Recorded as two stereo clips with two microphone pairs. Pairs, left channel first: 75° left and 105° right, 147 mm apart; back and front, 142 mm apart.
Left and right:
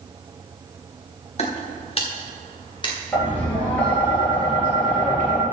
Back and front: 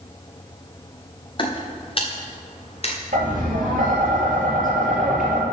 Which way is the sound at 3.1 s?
5° right.